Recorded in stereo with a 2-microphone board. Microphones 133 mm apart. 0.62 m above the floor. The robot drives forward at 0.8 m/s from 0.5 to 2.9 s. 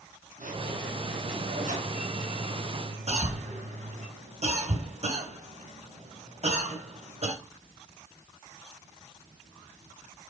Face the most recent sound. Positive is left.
turn(degrees=-50)  # may be behind; listen again after turning